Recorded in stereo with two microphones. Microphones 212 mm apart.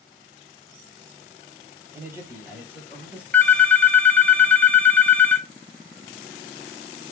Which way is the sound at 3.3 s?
10° left (ahead or behind).